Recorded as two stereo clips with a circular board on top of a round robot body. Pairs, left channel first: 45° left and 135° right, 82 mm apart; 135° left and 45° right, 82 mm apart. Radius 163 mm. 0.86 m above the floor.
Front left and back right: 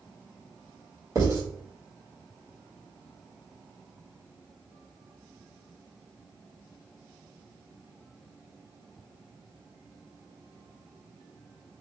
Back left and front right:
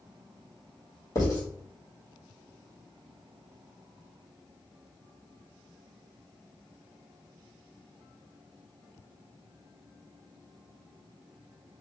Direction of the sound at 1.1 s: Straight behind.